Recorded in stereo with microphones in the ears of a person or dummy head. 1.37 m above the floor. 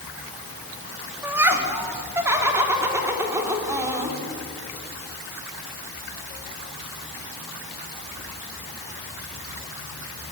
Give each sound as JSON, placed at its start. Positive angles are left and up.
{"t": 1.2, "sound": "laughter", "side_deg": -10, "distance_m": 3.0}